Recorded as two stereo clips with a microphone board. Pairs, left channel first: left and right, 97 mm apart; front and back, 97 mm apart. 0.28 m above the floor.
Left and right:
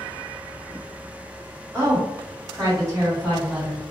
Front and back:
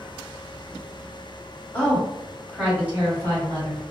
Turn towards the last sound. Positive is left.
turn(degrees=-140)